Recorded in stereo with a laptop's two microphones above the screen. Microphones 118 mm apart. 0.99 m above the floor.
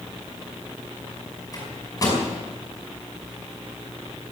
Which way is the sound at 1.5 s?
30° left (ahead or behind).